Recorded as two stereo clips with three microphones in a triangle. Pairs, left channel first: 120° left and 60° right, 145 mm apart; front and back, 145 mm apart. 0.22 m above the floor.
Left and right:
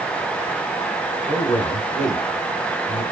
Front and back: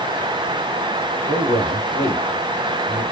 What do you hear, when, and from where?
1.3 s a man speaking: 160° left, 1.6 m